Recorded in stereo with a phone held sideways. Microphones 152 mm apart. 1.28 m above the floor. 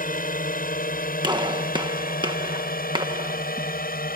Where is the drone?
70° left (ahead or behind); by 4.2 s 80° left.